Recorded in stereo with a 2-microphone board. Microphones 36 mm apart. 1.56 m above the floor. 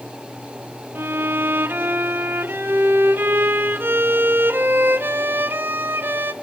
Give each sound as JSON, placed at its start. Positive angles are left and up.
{"t": 0.9, "sound": "a violin", "side_deg": -75, "distance_m": 0.6}